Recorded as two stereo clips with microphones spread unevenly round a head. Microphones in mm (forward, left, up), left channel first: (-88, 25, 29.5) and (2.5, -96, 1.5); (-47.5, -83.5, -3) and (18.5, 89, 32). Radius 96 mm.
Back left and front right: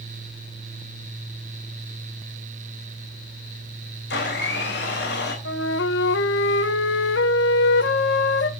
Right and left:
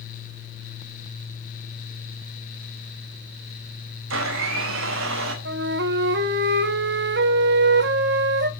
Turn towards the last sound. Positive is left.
turn(degrees=100)